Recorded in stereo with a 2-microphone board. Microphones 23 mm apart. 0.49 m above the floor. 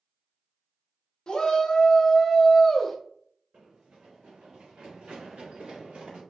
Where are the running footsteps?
75° right (ahead or behind), 1.8 m.